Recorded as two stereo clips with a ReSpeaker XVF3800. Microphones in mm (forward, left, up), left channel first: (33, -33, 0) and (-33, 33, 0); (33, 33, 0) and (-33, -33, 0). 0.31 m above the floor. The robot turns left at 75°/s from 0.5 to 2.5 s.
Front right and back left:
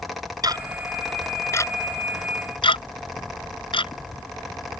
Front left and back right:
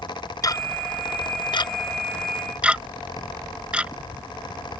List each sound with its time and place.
0.4 s ticking: 95° left; by 4.8 s 55° right